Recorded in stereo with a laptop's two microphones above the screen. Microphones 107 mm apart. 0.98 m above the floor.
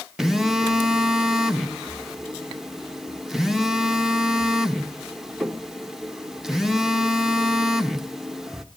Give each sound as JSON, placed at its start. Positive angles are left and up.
{"t": 0.2, "sound": "a phone buzzing", "side_deg": -5, "distance_m": 1.2}